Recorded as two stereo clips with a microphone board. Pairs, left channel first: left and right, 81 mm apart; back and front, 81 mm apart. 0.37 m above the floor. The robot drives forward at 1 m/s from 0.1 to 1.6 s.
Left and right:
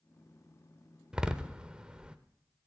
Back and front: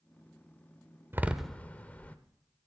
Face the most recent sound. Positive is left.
turn(degrees=-145)